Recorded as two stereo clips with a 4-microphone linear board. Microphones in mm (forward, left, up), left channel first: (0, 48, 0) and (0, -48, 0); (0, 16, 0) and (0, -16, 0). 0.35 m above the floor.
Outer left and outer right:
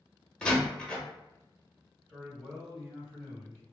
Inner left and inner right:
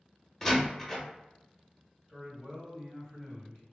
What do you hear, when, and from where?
0.4 s a door slam: 10° left (ahead or behind), 0.6 m
2.1 s a man speaking: 5° left (ahead or behind), 1.8 m